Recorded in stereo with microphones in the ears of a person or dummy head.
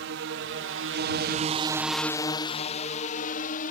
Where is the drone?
60° right (ahead or behind); by 3.7 s 50° left (ahead or behind).